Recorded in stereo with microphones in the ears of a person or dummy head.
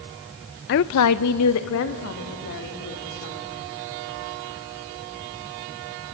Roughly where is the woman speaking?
Left.